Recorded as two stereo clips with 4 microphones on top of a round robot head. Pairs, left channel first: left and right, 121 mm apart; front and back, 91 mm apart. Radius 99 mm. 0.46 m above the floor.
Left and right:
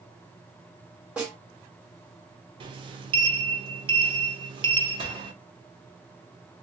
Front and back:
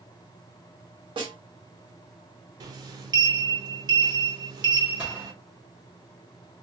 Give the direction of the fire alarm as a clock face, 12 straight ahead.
No fire alarm in this recording.